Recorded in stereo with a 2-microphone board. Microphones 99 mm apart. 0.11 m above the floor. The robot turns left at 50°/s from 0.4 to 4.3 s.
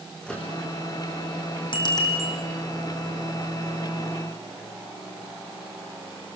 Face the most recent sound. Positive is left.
turn(degrees=-70)